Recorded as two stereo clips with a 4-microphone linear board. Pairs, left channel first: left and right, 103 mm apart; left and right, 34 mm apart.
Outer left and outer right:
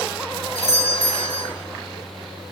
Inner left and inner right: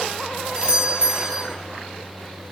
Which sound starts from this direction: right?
A doorbell, at 0.6 s.